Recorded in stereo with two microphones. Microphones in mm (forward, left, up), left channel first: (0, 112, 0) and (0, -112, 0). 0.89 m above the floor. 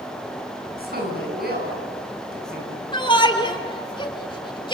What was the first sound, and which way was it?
A woman speaking, 45° right (ahead or behind).